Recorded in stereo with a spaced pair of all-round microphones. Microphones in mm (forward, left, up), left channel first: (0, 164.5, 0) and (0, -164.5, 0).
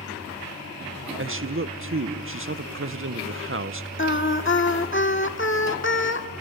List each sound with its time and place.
1.2 s a man speaking: 40° right (ahead or behind), 0.6 m
4.0 s singing: 35° left (ahead or behind), 1.5 m